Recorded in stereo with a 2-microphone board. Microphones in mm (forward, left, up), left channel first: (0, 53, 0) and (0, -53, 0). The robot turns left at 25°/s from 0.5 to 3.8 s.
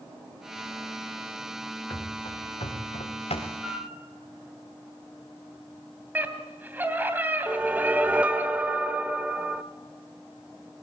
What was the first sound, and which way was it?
Running footsteps, 45° left (ahead or behind).